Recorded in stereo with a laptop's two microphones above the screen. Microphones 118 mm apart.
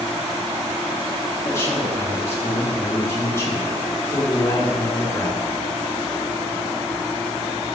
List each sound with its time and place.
1.4 s a man speaking: 20° left (ahead or behind), 1.2 m